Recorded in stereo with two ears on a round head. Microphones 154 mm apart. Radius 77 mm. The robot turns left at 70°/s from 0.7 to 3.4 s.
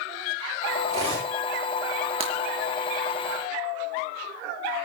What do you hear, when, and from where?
0.9 s cutlery clinking: 135° right, 10 m; by 1.3 s 165° right, 10 m
2.2 s breaking glass: 35° right (ahead or behind), 3.5 m; by 2.3 s 45° right (ahead or behind), 3.5 m